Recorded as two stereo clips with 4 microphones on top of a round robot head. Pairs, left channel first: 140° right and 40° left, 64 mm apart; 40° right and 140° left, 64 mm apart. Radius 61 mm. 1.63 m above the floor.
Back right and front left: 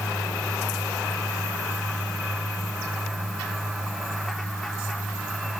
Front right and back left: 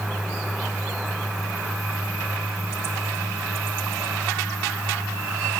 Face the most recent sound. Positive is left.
No sound to turn to.